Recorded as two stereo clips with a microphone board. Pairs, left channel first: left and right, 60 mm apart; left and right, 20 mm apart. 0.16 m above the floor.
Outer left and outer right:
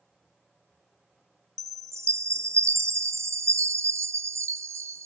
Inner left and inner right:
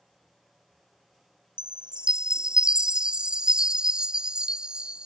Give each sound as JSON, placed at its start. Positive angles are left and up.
{"t": 1.6, "sound": "a chime", "side_deg": -55}